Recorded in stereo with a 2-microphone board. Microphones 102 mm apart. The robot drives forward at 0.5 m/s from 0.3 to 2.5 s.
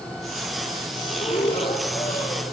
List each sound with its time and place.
1.1 s breathing: 65° left (ahead or behind), 7 m; by 2.4 s 70° left (ahead or behind), 7 m